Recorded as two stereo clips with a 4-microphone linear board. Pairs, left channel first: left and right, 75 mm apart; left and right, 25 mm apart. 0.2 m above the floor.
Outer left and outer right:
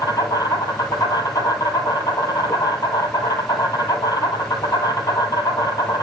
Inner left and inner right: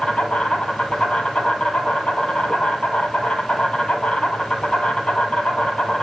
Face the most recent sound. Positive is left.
turn(degrees=55)  # may be behind; listen again after turning